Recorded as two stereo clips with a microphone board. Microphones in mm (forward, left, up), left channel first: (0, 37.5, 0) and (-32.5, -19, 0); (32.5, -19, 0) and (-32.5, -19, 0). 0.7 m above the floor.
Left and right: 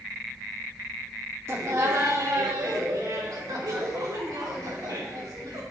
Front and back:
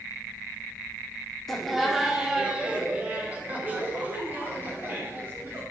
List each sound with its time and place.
1.5 s laughter: 85° right, 1.4 m; by 5.6 s 130° right, 3.5 m